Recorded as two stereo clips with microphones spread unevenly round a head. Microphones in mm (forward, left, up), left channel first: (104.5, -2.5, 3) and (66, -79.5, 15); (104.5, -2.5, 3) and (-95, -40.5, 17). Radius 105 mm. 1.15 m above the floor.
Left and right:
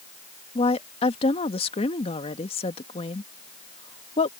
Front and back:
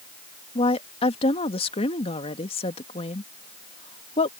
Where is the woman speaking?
75° left.